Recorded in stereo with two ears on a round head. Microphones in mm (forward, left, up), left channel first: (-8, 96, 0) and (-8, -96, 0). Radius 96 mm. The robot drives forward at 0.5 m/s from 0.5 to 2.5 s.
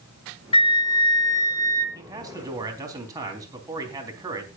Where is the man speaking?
20° right (ahead or behind), 3.5 m; by 4.5 s 15° right (ahead or behind), 3.5 m.